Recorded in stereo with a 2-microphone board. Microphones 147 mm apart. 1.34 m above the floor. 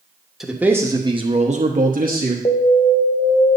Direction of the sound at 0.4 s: Centre (ahead or behind).